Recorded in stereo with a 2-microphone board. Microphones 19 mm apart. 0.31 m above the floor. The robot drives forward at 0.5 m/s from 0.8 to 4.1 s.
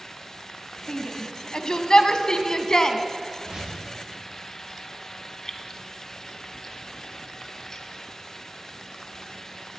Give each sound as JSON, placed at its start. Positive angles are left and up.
{"t": 0.9, "sound": "a shout", "side_deg": 50, "distance_m": 1.8}
{"t": 3.4, "sound": "a whoosh", "side_deg": -35, "distance_m": 10.0}
{"t": 5.5, "sound": "keys jangling", "side_deg": 35, "distance_m": 1.9}